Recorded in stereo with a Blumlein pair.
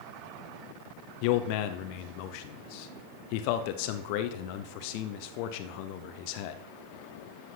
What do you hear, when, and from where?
1.2 s a man speaking: 45° left, 0.9 m